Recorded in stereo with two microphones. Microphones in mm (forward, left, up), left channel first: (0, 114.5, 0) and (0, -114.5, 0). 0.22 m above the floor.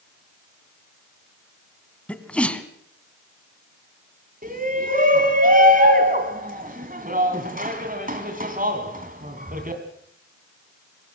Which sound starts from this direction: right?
A shout, at 4.4 s.